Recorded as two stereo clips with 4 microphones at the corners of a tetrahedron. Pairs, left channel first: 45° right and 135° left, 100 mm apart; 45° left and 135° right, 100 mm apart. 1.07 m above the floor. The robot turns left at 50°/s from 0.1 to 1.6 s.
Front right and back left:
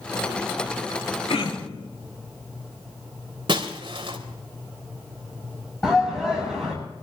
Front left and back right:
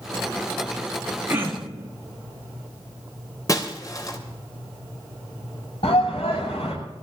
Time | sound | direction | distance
1.3 | throat clearing | 65° right | 2.0 m
3.5 | breaking glass | 100° left | 2.5 m
5.8 | a shout | 35° left | 6.5 m